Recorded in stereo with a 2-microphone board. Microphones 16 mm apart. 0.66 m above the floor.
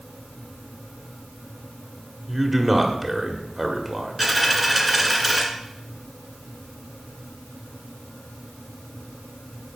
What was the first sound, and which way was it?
A man speaking, 20° right (ahead or behind).